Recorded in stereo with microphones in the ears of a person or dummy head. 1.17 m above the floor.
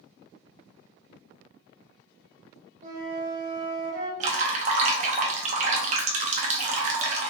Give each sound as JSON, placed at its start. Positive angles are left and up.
{"t": 2.8, "sound": "a flute", "side_deg": -30, "distance_m": 1.0}
{"t": 4.2, "sound": "dripping", "side_deg": -35, "distance_m": 0.6}